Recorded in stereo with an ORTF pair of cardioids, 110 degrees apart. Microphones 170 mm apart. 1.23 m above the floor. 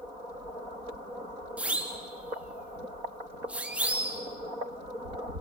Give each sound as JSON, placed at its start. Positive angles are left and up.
{"t": 1.6, "sound": "a siren", "azimuth_deg": -5, "distance_m": 3.0}